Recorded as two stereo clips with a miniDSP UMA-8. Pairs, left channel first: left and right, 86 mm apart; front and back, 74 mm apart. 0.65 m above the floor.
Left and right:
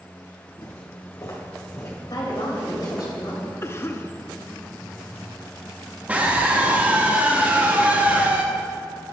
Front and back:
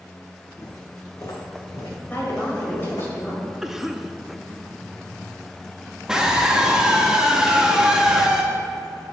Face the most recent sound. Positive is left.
turn(degrees=-120)